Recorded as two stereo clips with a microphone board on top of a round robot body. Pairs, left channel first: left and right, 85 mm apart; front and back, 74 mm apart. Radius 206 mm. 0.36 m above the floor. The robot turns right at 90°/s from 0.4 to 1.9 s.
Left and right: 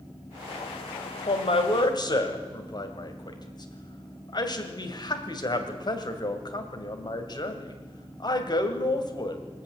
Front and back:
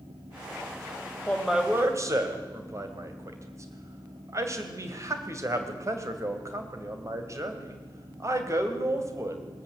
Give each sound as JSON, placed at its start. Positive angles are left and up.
{"t": 1.3, "sound": "a man speaking", "azimuth_deg": 70, "distance_m": 2.5}